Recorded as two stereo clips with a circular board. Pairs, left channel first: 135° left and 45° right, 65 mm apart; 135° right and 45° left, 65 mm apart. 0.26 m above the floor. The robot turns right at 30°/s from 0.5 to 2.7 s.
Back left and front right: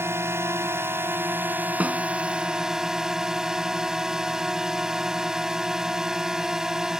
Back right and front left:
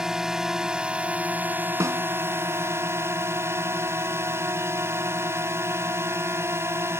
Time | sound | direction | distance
0.0 | a drone | 30° right | ?
1.8 | a snare drum | 20° left | ?